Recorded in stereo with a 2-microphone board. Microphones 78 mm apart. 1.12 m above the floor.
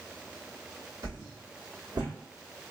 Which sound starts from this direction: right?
A whoosh, at 1.0 s.